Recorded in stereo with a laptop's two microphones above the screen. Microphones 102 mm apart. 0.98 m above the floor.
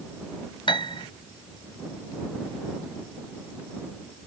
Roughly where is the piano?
Left.